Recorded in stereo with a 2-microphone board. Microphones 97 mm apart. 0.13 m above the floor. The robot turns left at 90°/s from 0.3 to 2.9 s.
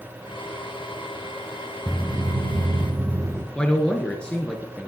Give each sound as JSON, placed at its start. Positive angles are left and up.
{"t": 1.9, "sound": "footsteps", "side_deg": 5, "distance_m": 0.9}
{"t": 3.5, "sound": "a man speaking", "side_deg": 10, "distance_m": 1.5}